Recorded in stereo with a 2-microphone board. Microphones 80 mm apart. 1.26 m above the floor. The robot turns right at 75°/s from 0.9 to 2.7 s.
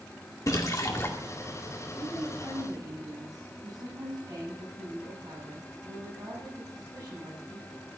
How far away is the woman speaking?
About 7 m.